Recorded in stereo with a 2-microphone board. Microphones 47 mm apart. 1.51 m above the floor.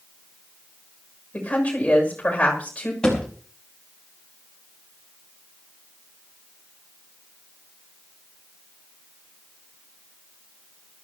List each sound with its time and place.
1.3 s a woman speaking: 30° left (ahead or behind), 7 m
3.0 s a thud: 15° left (ahead or behind), 5 m